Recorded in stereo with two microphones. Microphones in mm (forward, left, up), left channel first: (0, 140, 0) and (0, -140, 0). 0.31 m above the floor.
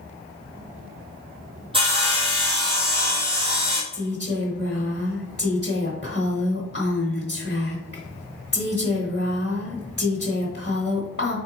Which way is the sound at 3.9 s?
35° left (ahead or behind).